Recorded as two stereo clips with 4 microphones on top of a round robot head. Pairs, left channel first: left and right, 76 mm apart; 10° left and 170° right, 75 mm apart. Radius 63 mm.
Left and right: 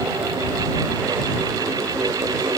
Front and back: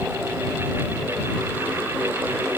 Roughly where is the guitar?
I don't hear a guitar.